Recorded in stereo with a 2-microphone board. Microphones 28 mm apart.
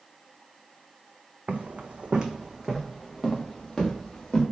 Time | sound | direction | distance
1.5 | footsteps | 70° right (ahead or behind) | 0.6 m